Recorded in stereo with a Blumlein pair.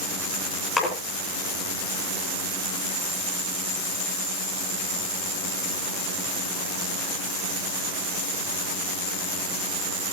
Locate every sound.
0.8 s a splash: 15° left, 8.5 m